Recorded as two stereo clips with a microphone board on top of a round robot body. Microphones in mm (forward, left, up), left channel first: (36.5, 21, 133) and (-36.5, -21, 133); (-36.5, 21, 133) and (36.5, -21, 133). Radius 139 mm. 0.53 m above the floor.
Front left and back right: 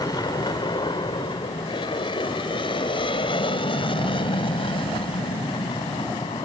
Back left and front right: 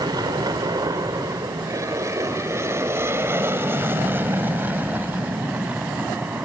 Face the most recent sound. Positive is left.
turn(degrees=45)